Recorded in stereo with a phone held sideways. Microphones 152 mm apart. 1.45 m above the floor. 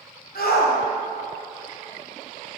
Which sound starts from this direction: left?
A shout, at 0.3 s.